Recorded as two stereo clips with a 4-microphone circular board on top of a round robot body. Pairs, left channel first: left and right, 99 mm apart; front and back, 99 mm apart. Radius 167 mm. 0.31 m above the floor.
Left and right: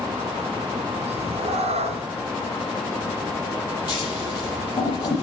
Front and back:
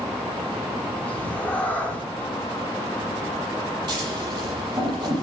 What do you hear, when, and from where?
1.1 s a cat meowing: 75° right, 1.8 m
3.9 s scissors: 130° left, 8.5 m